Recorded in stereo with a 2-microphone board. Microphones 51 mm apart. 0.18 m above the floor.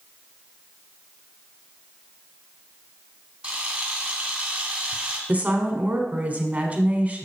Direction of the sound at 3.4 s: 20° right (ahead or behind).